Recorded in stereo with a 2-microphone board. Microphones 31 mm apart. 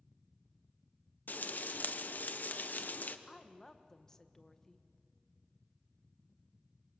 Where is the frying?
65° left (ahead or behind), 1.0 m.